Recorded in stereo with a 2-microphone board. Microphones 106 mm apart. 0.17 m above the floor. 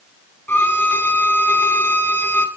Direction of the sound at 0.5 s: 20° left (ahead or behind).